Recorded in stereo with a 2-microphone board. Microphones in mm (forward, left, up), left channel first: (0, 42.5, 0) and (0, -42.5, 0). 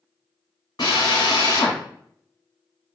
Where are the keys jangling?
I don't hear keys jangling.